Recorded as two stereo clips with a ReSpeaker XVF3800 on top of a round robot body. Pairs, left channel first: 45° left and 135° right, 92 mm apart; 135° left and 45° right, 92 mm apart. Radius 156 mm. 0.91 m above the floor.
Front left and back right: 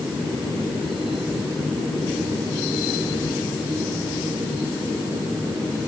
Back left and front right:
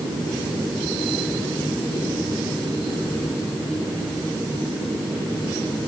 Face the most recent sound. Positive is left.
No sound to turn to.